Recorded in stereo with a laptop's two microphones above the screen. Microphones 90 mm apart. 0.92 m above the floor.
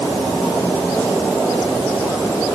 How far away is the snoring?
No snoring in this recording.